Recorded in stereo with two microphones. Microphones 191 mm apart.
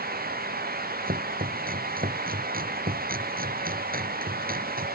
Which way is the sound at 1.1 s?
50° right (ahead or behind).